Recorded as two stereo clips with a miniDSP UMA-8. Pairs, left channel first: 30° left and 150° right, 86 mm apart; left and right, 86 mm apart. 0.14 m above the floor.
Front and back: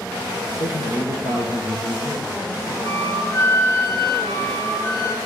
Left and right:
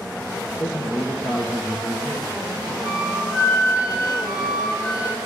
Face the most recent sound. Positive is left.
turn(degrees=-15)